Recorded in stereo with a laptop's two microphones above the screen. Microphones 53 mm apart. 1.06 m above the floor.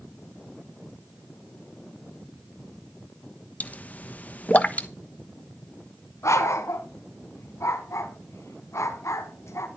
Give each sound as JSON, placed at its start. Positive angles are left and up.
{"t": 3.6, "sound": "a pop", "side_deg": 30, "distance_m": 1.0}
{"t": 6.2, "sound": "a dog barking", "side_deg": 65, "distance_m": 2.0}